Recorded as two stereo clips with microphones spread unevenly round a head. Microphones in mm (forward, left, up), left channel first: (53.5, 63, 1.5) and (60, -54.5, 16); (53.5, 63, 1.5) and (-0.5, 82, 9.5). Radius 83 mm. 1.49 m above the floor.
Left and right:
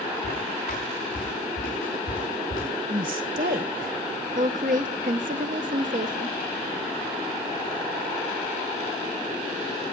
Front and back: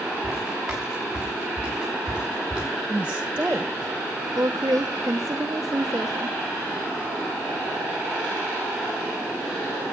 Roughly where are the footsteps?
Left.